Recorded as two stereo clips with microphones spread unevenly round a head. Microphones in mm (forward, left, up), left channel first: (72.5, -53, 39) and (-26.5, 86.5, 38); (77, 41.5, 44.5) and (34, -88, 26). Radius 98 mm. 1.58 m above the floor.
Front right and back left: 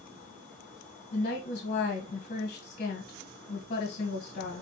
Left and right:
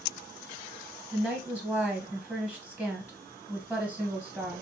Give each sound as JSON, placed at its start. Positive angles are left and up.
{"t": 1.1, "sound": "a woman speaking", "azimuth_deg": -10, "distance_m": 1.5}